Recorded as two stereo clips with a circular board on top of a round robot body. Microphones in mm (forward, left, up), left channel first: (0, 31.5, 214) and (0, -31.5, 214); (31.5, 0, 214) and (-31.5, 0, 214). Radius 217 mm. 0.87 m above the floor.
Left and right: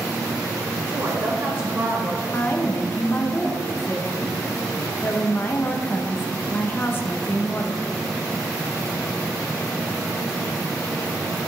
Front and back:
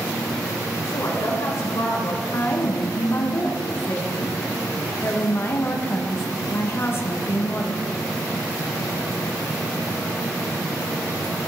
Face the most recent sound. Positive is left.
turn(degrees=45)